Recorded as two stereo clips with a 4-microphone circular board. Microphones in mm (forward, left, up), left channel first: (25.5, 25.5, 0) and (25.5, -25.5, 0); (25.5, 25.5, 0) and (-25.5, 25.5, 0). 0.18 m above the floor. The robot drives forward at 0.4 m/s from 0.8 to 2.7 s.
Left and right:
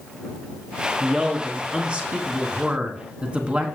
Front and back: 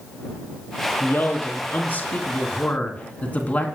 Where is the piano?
No piano in this recording.